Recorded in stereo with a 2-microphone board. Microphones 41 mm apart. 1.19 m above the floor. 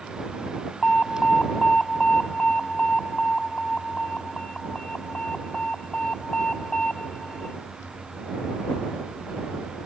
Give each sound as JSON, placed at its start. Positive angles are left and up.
{"t": 0.8, "sound": "an alarm", "side_deg": 25}